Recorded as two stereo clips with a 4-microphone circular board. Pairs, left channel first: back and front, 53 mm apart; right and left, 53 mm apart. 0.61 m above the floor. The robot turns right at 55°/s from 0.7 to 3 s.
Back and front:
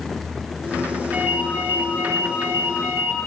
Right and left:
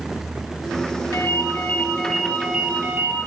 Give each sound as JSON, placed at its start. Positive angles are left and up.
{"t": 1.1, "sound": "a ringtone", "azimuth_deg": -60, "distance_m": 9.0}